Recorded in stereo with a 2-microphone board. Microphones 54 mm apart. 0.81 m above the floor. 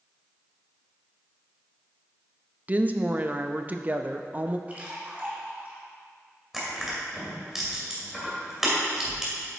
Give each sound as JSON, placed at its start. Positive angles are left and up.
{"t": 2.7, "sound": "a woman speaking", "side_deg": -30, "distance_m": 0.5}
{"t": 4.7, "sound": "a splash", "side_deg": -30, "distance_m": 1.8}
{"t": 6.5, "sound": "crushing", "side_deg": -10, "distance_m": 2.5}